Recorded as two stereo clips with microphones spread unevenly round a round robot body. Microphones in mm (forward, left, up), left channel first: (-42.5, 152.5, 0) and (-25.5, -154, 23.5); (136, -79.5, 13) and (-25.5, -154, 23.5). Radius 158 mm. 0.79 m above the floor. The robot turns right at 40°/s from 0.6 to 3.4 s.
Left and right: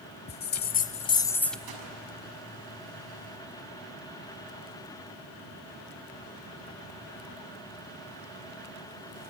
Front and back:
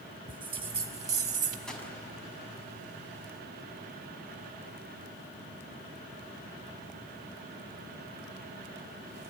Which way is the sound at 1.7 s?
60° right.